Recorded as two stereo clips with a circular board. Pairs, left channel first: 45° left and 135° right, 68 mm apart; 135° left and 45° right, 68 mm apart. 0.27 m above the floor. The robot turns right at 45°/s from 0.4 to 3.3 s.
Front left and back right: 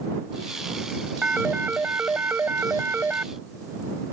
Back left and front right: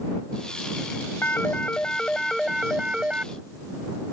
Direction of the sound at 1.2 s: 165° left.